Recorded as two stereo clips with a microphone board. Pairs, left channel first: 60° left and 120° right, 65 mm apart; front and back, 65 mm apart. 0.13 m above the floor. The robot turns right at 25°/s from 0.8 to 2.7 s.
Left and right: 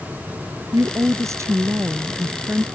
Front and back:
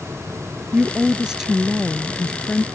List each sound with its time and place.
0.7 s a woman speaking: 115° right; by 2.6 s 70° right